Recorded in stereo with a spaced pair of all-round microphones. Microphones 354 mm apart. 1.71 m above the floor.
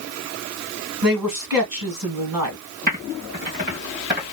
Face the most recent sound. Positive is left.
turn(degrees=-25)  # may be behind; listen again after turning